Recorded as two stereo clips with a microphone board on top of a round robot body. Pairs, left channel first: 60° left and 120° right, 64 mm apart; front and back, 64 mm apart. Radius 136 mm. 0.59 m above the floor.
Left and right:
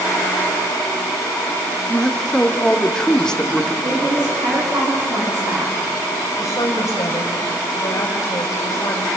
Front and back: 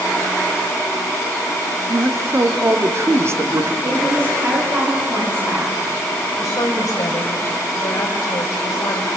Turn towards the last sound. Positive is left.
turn(degrees=25)